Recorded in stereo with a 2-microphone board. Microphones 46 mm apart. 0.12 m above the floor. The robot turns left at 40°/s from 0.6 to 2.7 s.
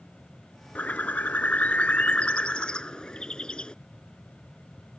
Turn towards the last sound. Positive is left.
turn(degrees=30)